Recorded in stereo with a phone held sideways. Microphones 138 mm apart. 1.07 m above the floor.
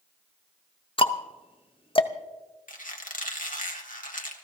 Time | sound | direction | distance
1.0 | ticking | 40° left (ahead or behind) | 0.7 m
2.7 | a squeak | 75° left (ahead or behind) | 1.7 m